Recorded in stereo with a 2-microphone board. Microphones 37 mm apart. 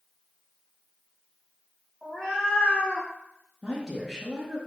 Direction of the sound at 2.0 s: 10° left (ahead or behind).